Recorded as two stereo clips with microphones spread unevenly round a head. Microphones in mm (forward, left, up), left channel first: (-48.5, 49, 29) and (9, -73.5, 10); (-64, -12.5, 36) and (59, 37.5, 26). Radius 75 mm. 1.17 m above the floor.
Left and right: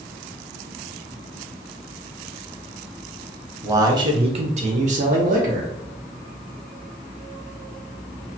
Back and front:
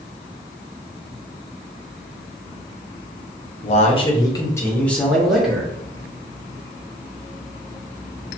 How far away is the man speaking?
About 0.8 m.